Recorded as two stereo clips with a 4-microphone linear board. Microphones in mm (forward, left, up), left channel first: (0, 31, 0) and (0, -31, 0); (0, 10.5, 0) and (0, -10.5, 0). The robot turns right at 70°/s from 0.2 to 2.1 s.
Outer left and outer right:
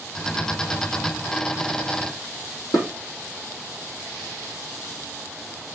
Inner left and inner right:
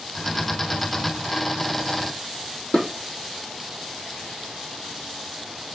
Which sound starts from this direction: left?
Dishes clattering, at 2.7 s.